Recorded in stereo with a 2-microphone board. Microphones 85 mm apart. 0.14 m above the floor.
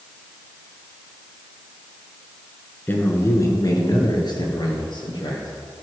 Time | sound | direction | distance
2.9 | a man speaking | 20° left (ahead or behind) | 1.8 m